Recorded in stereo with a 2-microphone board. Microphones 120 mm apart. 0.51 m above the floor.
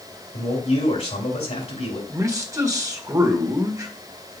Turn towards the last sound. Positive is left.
turn(degrees=-25)  # may be behind; listen again after turning